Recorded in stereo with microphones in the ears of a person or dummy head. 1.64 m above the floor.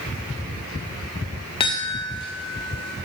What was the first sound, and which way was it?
A chime, 30° left (ahead or behind).